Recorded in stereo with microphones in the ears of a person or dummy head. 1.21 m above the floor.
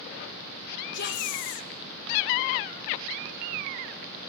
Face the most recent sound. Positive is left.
turn(degrees=55)  # may be behind; listen again after turning